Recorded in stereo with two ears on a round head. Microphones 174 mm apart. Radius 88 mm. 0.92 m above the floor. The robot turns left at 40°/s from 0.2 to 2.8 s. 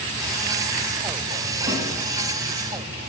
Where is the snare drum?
45° right (ahead or behind), 4 m; by 1.8 s 40° right (ahead or behind), 4 m.